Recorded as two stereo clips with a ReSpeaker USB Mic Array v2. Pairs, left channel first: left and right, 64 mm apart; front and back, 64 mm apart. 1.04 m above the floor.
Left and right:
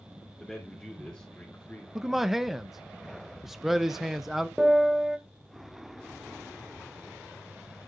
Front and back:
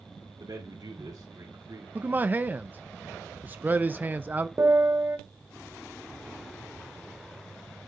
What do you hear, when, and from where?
0.4 s a man speaking: 175° left, 2.5 m; by 1.9 s 150° left, 3 m
1.9 s a man speaking: 170° right, 0.5 m
4.6 s a piano: 170° right, 0.9 m